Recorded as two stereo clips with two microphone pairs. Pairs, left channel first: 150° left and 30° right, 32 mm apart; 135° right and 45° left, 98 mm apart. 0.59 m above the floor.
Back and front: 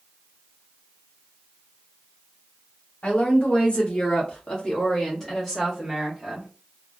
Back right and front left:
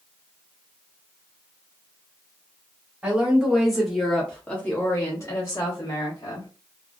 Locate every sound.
3.0 s a woman speaking: 120° left, 1.5 m; by 6.5 s 105° right, 1.5 m